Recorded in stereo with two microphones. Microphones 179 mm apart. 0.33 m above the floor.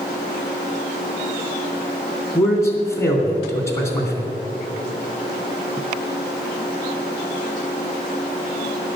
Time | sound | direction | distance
2.4 | a man speaking | 15° left (ahead or behind) | 2.5 m